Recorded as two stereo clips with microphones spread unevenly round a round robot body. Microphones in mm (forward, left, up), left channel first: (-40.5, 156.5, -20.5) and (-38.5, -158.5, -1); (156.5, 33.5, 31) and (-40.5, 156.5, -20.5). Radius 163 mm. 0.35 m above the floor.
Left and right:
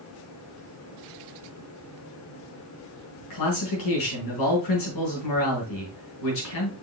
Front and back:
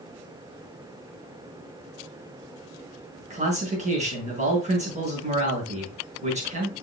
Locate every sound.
3.3 s a man speaking: 95° left, 5 m